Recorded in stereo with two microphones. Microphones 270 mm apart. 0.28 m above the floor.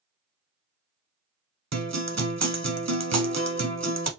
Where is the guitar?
75° right (ahead or behind), 0.7 m.